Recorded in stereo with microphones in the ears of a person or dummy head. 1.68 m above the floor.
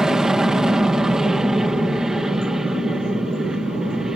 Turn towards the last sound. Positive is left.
turn(degrees=-5)  # may be behind; listen again after turning